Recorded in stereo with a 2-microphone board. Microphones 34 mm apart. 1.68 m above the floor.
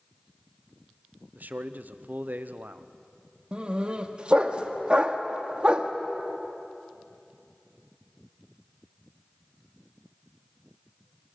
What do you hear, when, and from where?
1.4 s a man speaking: 60° right (ahead or behind), 0.9 m
3.5 s a dog barking: 35° right (ahead or behind), 1.2 m